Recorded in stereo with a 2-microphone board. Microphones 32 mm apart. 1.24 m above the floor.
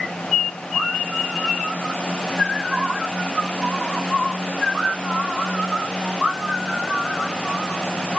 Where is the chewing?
No chewing in this recording.